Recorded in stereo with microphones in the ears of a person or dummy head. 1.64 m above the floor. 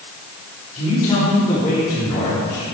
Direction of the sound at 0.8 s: 25° left (ahead or behind).